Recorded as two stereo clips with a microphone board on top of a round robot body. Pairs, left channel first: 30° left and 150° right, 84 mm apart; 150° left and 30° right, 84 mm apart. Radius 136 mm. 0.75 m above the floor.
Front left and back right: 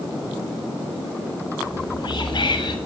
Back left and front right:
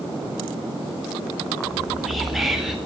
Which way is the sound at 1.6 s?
60° left.